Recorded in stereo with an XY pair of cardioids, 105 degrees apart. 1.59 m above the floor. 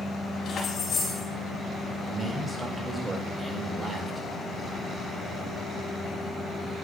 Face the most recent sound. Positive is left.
turn(degrees=-20)